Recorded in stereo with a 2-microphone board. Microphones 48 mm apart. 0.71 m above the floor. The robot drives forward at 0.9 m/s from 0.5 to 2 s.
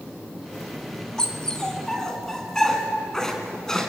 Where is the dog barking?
15° left (ahead or behind), 2.5 m; by 3.9 s 10° left (ahead or behind), 3 m.